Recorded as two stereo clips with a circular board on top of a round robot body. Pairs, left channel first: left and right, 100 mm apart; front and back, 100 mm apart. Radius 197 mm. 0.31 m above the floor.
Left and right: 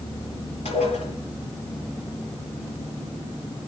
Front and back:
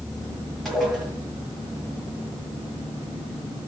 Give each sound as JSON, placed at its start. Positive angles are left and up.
{"t": 0.7, "sound": "dishes clattering", "azimuth_deg": 90, "distance_m": 7.5}